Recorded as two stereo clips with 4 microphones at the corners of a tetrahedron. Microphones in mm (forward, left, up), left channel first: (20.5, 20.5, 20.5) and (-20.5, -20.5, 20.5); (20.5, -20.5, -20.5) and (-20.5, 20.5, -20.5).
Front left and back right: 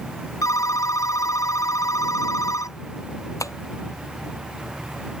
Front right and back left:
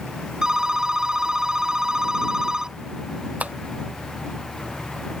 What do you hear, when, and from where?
0.4 s a phone ringing: 55° left
3.4 s tapping: 70° left